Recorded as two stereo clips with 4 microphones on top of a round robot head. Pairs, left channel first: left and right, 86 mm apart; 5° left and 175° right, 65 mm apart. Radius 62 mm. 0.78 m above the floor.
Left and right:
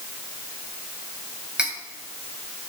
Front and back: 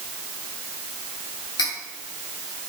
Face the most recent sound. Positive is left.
turn(degrees=-10)